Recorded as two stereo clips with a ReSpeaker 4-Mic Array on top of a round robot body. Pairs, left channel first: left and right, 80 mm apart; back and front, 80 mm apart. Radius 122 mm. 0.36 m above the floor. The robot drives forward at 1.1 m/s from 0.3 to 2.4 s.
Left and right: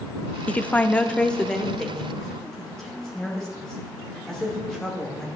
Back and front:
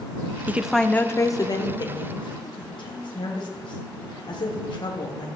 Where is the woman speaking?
35° left, 0.8 m; by 5.3 s 175° left, 2 m.